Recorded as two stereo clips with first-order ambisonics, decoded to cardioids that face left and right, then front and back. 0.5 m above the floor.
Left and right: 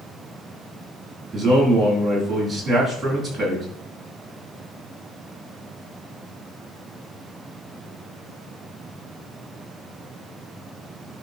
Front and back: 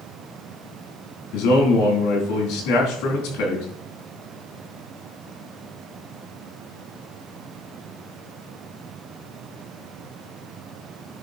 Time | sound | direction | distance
1.3 | a man speaking | 5° right | 4.5 m